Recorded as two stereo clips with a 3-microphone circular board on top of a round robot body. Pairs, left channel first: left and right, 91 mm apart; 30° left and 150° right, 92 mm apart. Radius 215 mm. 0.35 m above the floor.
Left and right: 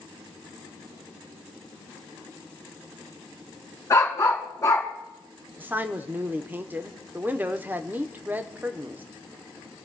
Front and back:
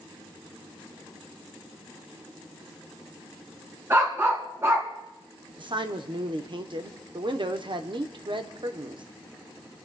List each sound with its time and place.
3.9 s a dog barking: 145° left, 3 m
5.6 s a man speaking: 160° right, 1.4 m